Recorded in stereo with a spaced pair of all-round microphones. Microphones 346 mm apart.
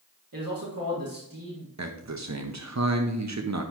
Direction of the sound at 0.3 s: 70° right (ahead or behind).